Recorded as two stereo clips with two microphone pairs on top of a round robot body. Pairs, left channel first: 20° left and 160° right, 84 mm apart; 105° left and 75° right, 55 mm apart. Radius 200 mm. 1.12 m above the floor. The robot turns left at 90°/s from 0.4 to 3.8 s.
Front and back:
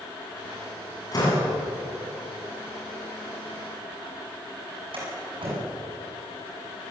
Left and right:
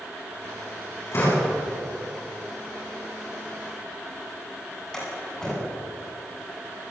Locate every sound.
1.1 s a door slam: 65° left, 9 m; by 5.6 s 175° right, 9 m